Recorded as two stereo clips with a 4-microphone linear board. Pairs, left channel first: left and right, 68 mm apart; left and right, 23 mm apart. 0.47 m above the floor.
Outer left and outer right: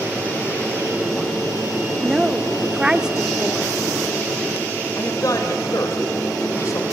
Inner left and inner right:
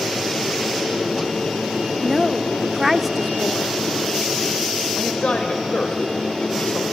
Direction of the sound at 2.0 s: 10° right (ahead or behind).